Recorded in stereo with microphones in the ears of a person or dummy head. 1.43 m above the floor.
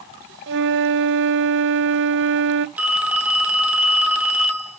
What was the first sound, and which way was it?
A flute, 60° right (ahead or behind).